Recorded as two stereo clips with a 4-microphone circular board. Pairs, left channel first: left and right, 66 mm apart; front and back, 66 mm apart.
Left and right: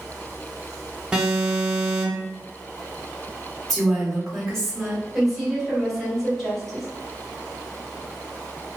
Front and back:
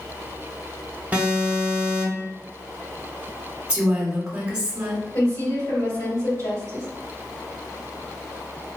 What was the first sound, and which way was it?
An alarm, 155° right.